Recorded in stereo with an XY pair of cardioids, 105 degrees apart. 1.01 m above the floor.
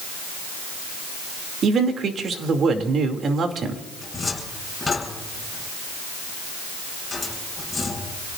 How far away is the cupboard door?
About 8.5 m.